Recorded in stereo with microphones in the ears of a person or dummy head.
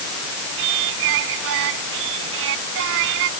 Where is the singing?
70° right (ahead or behind).